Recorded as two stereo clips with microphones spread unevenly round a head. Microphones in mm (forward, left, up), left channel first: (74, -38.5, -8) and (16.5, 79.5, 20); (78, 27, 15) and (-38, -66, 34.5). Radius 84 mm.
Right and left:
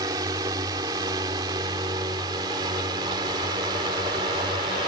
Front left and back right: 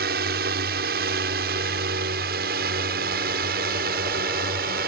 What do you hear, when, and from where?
0.0 s a drone: 175° right; by 4.9 s straight behind